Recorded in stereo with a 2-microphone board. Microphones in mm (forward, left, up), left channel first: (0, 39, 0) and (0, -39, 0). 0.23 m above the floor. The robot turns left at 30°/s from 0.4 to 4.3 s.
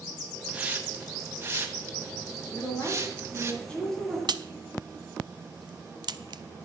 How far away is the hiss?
About 1.4 m.